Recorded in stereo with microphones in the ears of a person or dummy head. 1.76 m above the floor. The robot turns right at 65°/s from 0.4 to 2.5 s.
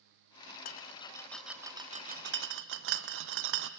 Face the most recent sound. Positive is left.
turn(degrees=-65)  # may be behind; listen again after turning